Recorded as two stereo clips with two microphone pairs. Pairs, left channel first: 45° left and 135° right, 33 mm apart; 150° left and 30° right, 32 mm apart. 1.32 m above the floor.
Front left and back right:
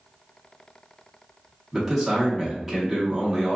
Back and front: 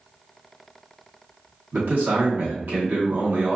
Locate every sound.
1.7 s a man speaking: 45° right, 0.8 m